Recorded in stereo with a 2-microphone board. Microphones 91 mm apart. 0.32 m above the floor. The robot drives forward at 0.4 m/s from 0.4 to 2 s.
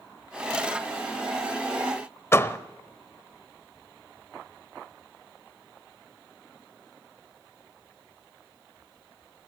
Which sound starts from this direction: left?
A door slam, at 2.3 s.